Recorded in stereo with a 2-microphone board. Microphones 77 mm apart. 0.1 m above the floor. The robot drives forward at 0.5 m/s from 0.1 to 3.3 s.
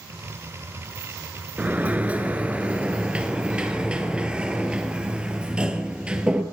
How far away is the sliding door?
About 0.9 m.